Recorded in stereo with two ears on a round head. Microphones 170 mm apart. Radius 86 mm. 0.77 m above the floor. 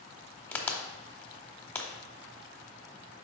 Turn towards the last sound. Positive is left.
turn(degrees=10)  # may be behind; listen again after turning